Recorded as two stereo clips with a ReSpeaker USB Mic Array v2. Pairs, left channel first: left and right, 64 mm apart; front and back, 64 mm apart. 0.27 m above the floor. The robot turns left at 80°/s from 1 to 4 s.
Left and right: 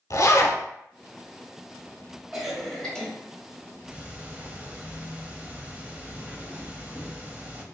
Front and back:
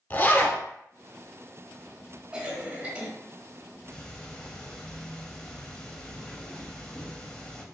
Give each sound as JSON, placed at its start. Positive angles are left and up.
{"t": 0.1, "sound": "a zipper", "azimuth_deg": 60, "distance_m": 0.7}
{"t": 2.3, "sound": "a cough", "azimuth_deg": -160, "distance_m": 1.0}
{"t": 3.9, "sound": "ticking", "azimuth_deg": -45, "distance_m": 0.6}